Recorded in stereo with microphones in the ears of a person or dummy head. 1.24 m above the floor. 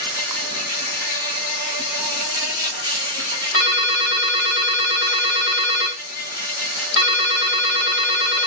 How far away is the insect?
About 1.9 m.